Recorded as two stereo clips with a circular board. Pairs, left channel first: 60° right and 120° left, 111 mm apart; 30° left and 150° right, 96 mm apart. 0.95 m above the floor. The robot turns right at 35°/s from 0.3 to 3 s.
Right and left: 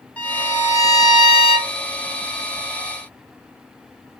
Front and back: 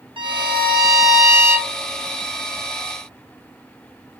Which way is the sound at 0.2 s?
135° right.